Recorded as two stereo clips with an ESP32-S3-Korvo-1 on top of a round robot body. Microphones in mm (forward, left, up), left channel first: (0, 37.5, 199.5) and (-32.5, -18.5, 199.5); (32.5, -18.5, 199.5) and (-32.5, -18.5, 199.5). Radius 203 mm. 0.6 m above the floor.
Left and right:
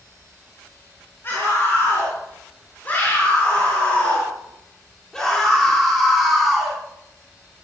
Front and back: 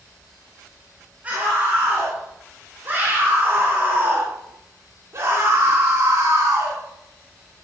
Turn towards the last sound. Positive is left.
turn(degrees=155)